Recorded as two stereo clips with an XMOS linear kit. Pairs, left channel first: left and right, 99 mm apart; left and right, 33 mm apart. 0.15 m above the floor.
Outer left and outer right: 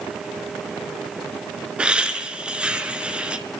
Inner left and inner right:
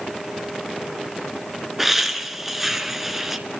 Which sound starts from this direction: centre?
Laughter, at 1.8 s.